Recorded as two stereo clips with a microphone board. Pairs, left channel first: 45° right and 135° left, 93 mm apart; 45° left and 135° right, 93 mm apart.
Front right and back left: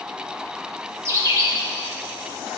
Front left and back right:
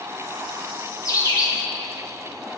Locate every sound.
1.1 s a bird: 90° left, 1.9 m